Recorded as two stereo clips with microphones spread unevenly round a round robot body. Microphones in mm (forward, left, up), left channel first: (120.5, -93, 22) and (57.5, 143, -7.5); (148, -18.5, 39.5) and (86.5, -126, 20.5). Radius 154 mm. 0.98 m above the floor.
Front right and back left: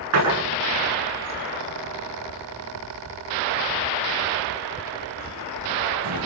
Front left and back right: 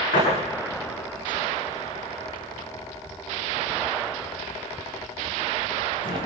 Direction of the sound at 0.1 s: 95° left.